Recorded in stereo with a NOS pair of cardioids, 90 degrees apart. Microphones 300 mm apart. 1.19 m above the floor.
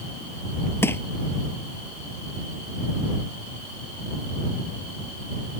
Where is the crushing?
10° left.